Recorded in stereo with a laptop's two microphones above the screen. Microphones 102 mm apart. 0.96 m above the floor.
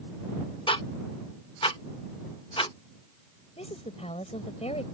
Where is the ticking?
55° left (ahead or behind).